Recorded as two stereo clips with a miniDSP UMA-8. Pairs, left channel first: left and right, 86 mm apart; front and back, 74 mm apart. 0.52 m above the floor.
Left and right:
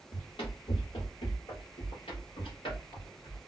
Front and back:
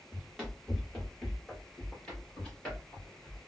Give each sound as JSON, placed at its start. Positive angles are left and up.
{"t": 0.1, "sound": "running footsteps", "azimuth_deg": 85, "distance_m": 1.7}